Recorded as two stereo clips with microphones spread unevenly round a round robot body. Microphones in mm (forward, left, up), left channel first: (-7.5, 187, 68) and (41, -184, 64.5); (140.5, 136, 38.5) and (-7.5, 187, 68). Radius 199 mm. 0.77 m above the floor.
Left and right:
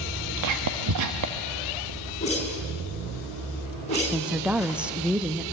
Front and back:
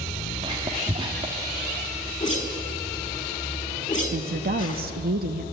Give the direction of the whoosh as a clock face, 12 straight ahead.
11 o'clock.